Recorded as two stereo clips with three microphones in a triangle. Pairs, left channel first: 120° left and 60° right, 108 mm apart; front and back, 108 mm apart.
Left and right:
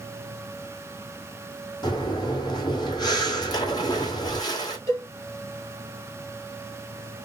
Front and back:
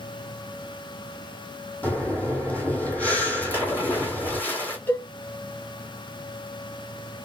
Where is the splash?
70° left, 1.6 m.